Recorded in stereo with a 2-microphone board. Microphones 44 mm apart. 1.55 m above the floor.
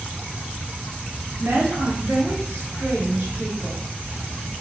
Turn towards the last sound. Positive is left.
turn(degrees=-45)  # may be behind; listen again after turning